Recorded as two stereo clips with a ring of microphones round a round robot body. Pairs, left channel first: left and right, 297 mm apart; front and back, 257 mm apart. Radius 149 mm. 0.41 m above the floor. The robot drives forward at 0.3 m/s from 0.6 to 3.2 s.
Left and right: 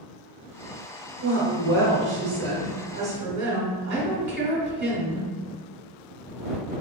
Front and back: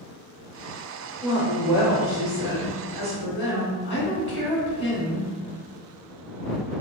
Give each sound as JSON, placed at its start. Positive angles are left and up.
{"t": 1.2, "sound": "a woman speaking", "azimuth_deg": -85, "distance_m": 1.3}